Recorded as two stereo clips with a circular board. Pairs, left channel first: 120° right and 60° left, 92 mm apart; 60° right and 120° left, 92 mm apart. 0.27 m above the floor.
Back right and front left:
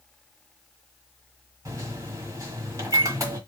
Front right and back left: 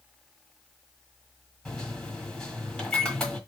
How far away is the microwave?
About 1.4 m.